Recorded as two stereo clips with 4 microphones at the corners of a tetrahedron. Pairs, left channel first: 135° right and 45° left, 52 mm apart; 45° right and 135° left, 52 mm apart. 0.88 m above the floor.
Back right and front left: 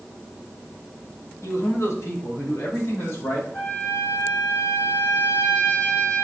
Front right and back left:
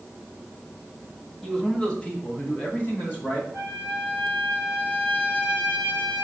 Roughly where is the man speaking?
Behind right.